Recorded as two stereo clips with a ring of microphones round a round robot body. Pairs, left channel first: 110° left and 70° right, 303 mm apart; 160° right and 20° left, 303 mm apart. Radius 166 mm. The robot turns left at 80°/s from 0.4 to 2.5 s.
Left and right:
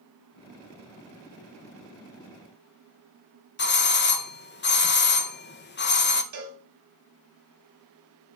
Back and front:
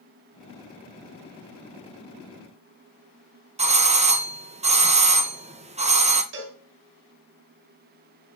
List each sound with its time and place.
3.6 s a doorbell: 80° left, 1.2 m
6.3 s a cowbell: 30° right, 2.5 m